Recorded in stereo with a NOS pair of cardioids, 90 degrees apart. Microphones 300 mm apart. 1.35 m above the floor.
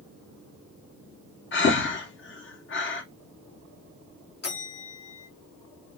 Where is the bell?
35° left, 1.7 m.